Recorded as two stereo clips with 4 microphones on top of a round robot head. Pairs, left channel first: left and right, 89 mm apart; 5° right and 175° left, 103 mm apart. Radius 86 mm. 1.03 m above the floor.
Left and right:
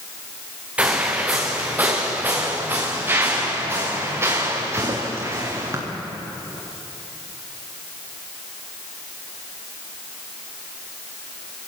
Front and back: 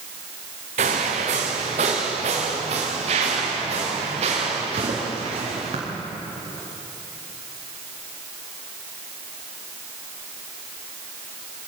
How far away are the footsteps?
About 4 m.